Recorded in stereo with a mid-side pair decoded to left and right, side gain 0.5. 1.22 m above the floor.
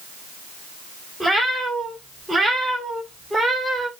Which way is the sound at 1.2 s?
5° right.